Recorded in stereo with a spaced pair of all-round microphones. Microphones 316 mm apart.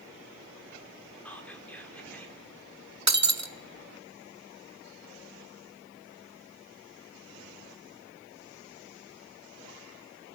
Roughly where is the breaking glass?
Right.